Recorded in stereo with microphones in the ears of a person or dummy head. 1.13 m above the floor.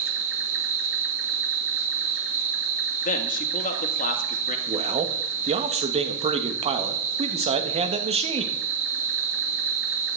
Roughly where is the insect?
Right.